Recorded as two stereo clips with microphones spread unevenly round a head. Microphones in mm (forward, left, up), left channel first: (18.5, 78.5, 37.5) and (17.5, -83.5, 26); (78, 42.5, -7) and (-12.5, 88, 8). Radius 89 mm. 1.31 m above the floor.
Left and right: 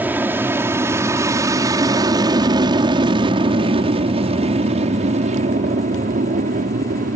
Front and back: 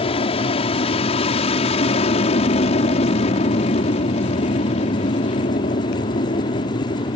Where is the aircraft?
10° right; by 7.2 s 55° right.